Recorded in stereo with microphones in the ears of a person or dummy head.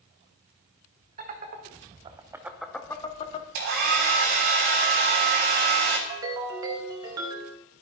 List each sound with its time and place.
1.2 s laughter: 45° right (ahead or behind), 1.3 m; by 3.5 s 35° left (ahead or behind), 0.8 m
3.5 s a hair dryer: 55° right (ahead or behind), 1.8 m
6.1 s a ringtone: 20° right (ahead or behind), 0.7 m